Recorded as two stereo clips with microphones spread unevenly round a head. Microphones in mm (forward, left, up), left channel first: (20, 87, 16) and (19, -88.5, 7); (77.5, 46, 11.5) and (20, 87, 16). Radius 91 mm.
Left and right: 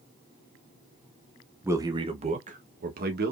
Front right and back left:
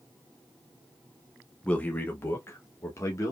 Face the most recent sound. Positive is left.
turn(degrees=-80)